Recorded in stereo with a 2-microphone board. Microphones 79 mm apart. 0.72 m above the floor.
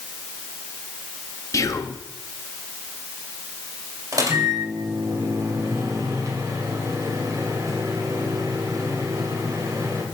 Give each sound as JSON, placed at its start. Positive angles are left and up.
{"t": 1.5, "sound": "whispering", "side_deg": 40, "distance_m": 0.7}
{"t": 4.1, "sound": "a microwave", "side_deg": -45, "distance_m": 2.0}